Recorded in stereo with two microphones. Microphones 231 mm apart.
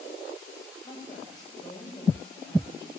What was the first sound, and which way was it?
A woman speaking, 20° left (ahead or behind).